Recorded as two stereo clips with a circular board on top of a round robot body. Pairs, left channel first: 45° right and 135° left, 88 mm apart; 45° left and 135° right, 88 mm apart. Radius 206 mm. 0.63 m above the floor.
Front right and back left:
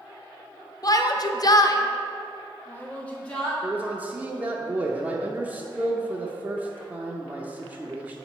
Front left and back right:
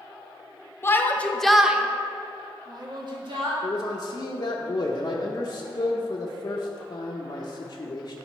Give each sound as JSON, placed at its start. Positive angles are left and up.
{"t": 0.8, "sound": "a shout", "azimuth_deg": -10, "distance_m": 0.9}
{"t": 3.6, "sound": "a man speaking", "azimuth_deg": 70, "distance_m": 0.8}